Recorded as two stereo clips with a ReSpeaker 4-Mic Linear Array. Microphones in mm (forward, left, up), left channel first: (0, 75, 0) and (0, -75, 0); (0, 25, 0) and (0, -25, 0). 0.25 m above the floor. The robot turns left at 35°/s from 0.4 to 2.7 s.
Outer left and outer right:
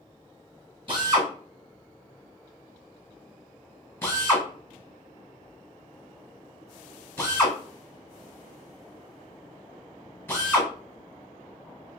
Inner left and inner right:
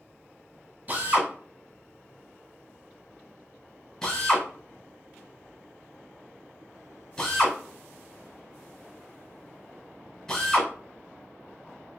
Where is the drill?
35° right (ahead or behind), 1.4 m; by 10.7 s 15° left (ahead or behind), 1.4 m.